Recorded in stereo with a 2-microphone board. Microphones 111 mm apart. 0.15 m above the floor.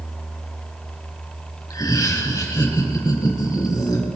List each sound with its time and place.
1.7 s laughter: 30° left (ahead or behind), 2.5 m; by 4.0 s 35° left (ahead or behind), 5 m